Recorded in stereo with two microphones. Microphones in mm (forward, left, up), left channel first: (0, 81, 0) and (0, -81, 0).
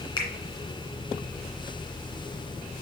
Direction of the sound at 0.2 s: 30° left (ahead or behind).